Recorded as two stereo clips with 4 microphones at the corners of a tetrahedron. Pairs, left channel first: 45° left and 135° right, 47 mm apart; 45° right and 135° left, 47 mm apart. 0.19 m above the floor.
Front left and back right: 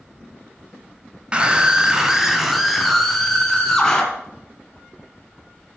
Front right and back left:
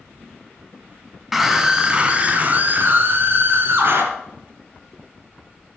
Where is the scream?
150° right, 1.6 m; by 4.0 s 125° left, 3 m.